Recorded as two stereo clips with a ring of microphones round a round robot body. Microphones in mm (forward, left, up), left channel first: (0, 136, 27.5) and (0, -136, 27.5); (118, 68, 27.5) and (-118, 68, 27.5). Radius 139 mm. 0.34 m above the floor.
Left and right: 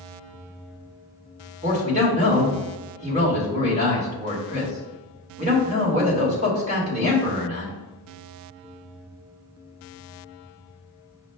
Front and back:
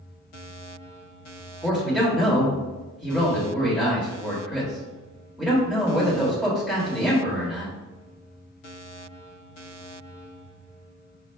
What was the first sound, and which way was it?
A man speaking, 95° right.